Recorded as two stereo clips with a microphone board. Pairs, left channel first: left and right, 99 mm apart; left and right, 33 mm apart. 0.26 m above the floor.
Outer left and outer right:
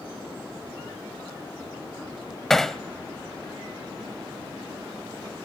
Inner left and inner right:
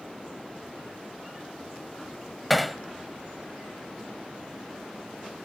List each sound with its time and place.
2.5 s hammering: 5° left (ahead or behind), 0.7 m